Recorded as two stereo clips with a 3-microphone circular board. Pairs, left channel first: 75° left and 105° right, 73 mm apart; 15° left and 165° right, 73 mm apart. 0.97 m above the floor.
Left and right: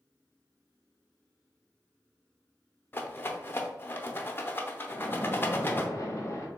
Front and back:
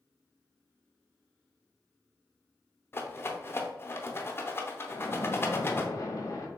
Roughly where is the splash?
Ahead left.